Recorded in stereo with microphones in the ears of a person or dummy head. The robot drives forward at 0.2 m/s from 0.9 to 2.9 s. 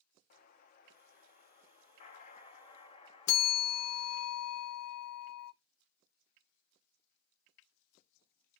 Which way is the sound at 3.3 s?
80° left.